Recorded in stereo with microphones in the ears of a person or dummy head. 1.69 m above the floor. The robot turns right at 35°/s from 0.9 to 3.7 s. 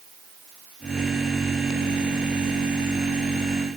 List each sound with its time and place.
Only background noise.